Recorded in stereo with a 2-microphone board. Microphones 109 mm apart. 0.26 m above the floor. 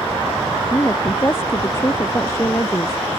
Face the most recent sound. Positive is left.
turn(degrees=25)  # may be behind; listen again after turning